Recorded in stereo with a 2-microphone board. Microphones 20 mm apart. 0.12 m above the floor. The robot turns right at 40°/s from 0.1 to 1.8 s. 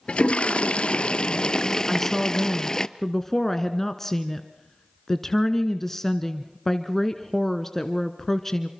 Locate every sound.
0.1 s a toilet flushing: 80° left, 0.6 m; by 2.9 s 145° left, 0.6 m
1.9 s a woman speaking: 15° left (ahead or behind), 1.1 m